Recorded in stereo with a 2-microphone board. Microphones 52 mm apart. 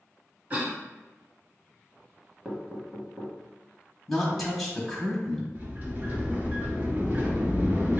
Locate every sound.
0.5 s a cough: 25° right (ahead or behind), 1.3 m
2.5 s knocking: 15° right (ahead or behind), 1.0 m
4.1 s a woman speaking: 5° left (ahead or behind), 0.9 m
5.5 s a sliding door: 35° right (ahead or behind), 1.2 m